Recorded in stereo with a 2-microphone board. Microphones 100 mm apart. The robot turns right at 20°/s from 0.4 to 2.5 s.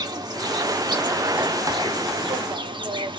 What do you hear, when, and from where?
0.0 s an insect: 125° right, 0.7 m; by 3.2 s 80° right, 0.7 m